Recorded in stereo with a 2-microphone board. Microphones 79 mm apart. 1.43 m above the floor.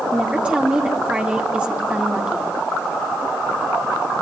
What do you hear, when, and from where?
0.1 s a woman speaking: 15° right (ahead or behind), 3 m